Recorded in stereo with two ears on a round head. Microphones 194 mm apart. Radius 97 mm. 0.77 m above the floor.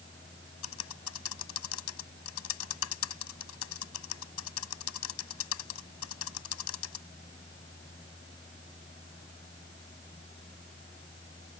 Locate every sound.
0.6 s typing on a keyboard: 80° left